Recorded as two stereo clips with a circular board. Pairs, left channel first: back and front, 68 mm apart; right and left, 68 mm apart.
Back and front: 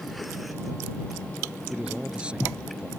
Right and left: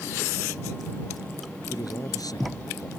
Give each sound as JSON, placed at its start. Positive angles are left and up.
{"t": 1.7, "sound": "a man speaking", "azimuth_deg": -75}